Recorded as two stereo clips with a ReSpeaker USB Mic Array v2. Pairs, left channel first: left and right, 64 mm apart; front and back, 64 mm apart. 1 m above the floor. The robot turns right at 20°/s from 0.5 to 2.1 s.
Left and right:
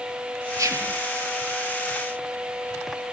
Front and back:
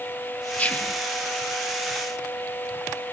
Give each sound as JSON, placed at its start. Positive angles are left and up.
{"t": 0.6, "sound": "whispering", "azimuth_deg": -65, "distance_m": 1.2}